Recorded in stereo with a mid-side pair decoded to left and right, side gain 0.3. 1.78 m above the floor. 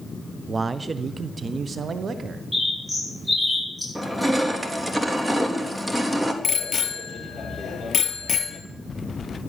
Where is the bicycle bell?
60° left, 2.5 m.